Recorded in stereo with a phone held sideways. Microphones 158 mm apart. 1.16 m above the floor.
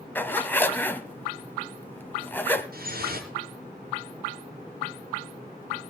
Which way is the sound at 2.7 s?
75° right (ahead or behind).